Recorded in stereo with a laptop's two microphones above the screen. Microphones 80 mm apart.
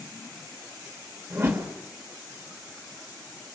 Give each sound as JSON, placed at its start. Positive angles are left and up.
{"t": 1.3, "sound": "a whoosh", "side_deg": -35, "distance_m": 1.3}